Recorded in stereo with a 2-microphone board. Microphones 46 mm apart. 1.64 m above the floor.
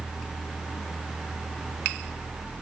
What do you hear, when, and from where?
Only background noise.